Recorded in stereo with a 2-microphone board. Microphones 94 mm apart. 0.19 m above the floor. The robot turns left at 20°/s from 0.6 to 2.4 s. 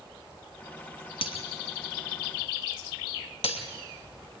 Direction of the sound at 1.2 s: 70° left (ahead or behind).